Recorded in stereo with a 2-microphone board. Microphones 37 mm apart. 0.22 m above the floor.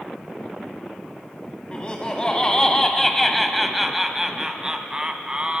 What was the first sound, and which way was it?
Laughter, 30° left (ahead or behind).